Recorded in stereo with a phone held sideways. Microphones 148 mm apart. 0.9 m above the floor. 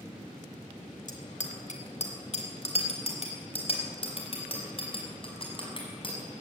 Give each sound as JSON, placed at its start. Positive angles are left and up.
{"t": 1.1, "sound": "a bicycle bell", "side_deg": 65, "distance_m": 2.5}